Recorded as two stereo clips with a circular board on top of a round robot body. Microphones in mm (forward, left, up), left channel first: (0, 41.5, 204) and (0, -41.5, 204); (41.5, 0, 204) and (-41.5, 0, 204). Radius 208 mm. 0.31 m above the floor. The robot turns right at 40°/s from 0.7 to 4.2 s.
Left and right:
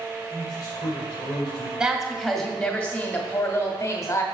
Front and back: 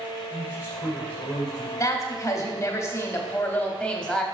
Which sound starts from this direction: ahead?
A woman speaking, at 1.8 s.